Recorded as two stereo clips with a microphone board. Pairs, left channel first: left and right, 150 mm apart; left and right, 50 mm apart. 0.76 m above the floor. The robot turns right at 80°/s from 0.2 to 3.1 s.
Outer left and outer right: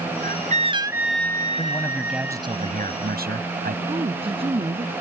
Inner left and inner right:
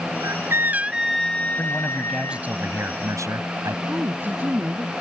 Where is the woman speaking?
35° right (ahead or behind).